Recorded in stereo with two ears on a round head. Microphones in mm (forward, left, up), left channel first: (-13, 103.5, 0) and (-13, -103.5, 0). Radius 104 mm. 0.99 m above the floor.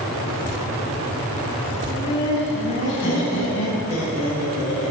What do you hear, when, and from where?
1.9 s laughter: 45° left (ahead or behind), 5.5 m; by 4.9 s 75° left (ahead or behind), 8 m